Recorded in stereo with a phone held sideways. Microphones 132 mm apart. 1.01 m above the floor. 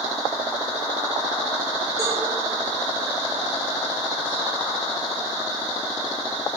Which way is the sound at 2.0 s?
25° right (ahead or behind).